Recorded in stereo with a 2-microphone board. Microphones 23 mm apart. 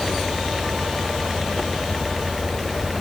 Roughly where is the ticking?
I don't hear ticking.